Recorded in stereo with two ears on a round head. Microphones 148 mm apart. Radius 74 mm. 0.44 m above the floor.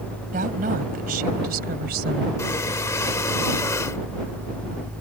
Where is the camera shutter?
I don't hear a camera shutter.